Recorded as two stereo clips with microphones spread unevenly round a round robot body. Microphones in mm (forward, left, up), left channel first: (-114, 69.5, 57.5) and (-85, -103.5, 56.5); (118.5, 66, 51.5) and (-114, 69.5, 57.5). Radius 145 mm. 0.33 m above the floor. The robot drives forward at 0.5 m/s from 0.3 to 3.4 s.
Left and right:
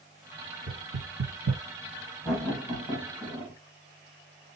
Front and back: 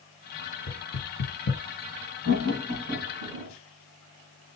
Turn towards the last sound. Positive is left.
turn(degrees=-170)